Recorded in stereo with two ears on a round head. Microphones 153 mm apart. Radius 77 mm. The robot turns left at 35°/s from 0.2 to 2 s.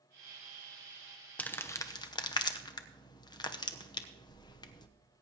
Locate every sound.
1.4 s crumpling: 10° left (ahead or behind), 0.9 m; by 4.9 s 25° left (ahead or behind), 0.9 m